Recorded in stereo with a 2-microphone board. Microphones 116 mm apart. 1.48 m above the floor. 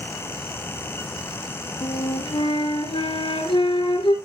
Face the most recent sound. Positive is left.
turn(degrees=45)  # may be behind; listen again after turning